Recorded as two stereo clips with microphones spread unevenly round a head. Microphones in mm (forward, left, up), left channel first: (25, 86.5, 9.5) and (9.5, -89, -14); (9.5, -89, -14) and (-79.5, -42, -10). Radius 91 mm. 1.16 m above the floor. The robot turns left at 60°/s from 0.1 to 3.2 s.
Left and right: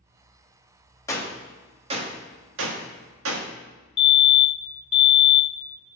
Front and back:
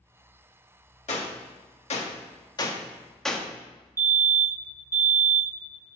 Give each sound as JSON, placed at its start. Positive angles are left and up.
{"t": 1.1, "sound": "a gunshot", "azimuth_deg": 15, "distance_m": 1.3}
{"t": 4.0, "sound": "a fire alarm", "azimuth_deg": 115, "distance_m": 1.0}